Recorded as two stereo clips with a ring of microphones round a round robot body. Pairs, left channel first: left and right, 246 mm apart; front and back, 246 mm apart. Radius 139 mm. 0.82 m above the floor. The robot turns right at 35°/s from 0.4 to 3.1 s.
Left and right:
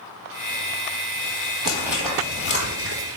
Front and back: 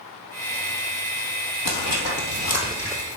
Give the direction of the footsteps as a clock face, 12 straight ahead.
1 o'clock.